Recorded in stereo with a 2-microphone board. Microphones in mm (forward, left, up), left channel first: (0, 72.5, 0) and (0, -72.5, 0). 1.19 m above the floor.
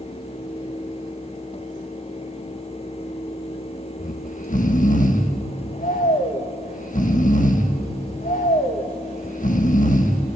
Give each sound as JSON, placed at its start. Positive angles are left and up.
{"t": 4.0, "sound": "snoring", "side_deg": 60, "distance_m": 1.5}